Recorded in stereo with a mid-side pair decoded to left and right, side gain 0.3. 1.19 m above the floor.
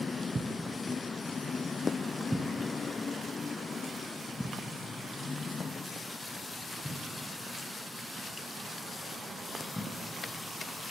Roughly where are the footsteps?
Ahead right.